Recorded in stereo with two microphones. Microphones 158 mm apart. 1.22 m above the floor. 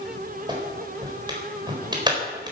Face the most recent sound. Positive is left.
turn(degrees=-25)  # may be behind; listen again after turning